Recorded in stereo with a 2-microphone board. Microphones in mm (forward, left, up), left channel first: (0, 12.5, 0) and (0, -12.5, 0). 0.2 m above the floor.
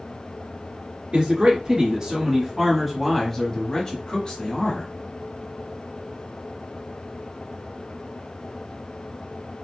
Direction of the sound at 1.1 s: 45° right (ahead or behind).